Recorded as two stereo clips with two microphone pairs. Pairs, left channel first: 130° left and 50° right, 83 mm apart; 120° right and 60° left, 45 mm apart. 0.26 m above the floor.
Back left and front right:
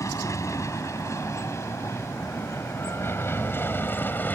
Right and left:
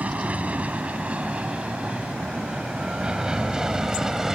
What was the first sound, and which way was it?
An aircraft, 100° left.